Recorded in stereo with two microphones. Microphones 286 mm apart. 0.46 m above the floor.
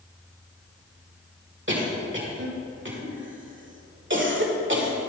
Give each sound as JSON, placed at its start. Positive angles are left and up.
{"t": 1.7, "sound": "a cough", "side_deg": -45, "distance_m": 1.8}